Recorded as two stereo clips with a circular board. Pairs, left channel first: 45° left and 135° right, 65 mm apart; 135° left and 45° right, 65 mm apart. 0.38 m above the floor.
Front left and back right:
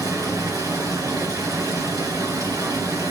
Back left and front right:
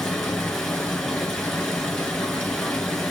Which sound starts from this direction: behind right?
Running water, at 0.0 s.